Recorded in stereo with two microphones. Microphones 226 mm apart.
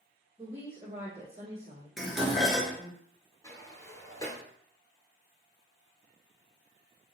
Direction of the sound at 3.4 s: 15° left (ahead or behind).